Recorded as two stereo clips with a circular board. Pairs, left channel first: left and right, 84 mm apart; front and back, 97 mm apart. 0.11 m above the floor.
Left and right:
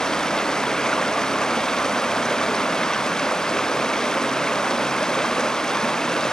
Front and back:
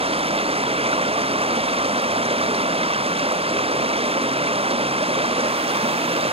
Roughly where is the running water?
Behind.